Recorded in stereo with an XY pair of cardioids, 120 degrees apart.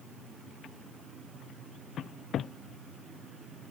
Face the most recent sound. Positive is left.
No sound to turn to.